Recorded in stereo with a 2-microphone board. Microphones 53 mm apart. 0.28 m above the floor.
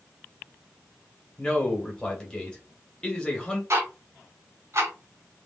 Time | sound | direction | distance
1.4 | a man speaking | 15° left (ahead or behind) | 1.1 m
3.7 | ticking | 55° right (ahead or behind) | 0.9 m